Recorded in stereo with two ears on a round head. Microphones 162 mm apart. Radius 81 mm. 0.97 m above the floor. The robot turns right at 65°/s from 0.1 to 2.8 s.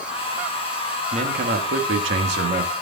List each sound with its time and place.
1.1 s a man speaking: 145° right, 1.3 m; by 2.7 s 40° right, 1.3 m